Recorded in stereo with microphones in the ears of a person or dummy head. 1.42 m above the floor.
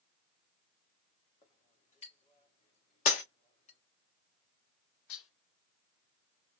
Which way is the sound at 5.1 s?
75° left (ahead or behind).